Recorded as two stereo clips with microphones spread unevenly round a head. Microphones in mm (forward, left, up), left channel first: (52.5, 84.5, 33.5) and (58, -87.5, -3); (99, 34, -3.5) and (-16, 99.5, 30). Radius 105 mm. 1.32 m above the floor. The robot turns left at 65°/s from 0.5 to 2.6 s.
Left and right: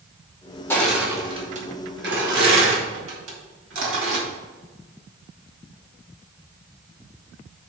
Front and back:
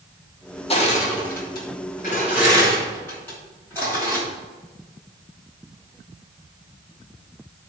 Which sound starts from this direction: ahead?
Crushing, at 0.7 s.